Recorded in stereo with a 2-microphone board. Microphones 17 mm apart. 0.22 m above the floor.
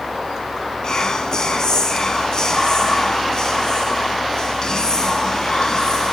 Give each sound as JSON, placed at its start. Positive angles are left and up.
{"t": 0.8, "sound": "whispering", "side_deg": 40, "distance_m": 2.0}